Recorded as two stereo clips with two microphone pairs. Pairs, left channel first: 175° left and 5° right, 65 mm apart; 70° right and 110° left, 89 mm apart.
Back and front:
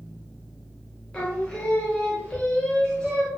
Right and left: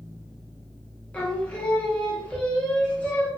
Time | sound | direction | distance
1.1 | singing | 125° right | 0.7 m